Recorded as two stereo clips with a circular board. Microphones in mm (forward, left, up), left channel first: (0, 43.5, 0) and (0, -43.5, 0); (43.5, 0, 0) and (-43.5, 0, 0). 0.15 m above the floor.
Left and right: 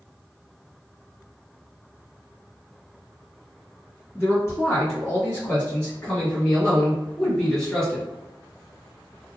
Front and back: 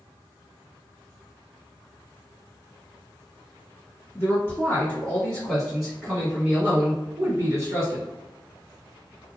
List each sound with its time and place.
4.2 s a man speaking: 45° left, 1.8 m; by 8.1 s 175° left, 1.9 m